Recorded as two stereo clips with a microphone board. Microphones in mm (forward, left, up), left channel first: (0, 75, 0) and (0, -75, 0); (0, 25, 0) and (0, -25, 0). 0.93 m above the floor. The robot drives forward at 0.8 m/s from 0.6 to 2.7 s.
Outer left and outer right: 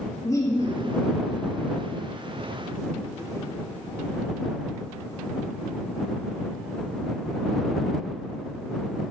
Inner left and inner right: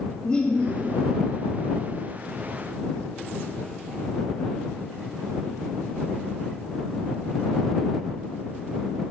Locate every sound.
0.2 s laughter: 25° left (ahead or behind), 1.6 m